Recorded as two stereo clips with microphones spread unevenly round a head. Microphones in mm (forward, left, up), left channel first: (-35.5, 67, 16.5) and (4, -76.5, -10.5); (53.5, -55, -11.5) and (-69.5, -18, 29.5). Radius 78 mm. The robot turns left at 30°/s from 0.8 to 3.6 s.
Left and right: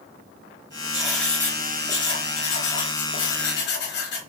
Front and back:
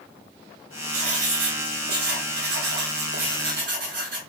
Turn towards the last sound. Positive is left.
turn(degrees=120)